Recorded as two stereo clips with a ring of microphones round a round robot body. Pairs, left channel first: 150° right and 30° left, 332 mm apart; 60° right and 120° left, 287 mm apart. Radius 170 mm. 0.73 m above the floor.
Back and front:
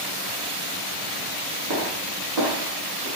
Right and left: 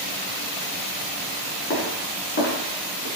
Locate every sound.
1.7 s footsteps: 10° right, 3 m; by 3.1 s 15° right, 4 m